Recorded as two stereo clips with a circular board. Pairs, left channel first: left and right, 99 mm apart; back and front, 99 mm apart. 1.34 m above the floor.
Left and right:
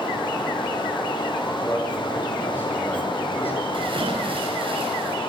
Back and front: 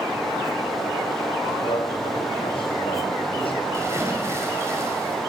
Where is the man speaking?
160° left, 8 m.